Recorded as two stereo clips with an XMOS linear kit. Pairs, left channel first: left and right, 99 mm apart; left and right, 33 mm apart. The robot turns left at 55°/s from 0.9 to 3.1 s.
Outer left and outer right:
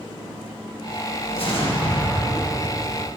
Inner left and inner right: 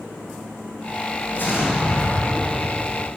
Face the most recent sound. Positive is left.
turn(degrees=5)